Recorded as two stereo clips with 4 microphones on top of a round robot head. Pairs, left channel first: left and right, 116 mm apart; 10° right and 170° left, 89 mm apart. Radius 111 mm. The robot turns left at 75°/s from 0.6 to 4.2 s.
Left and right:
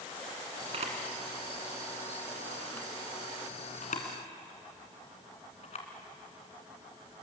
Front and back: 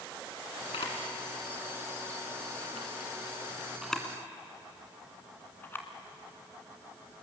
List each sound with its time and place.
0.7 s a camera shutter: 45° right, 2.5 m; by 5.9 s 55° left, 2.5 m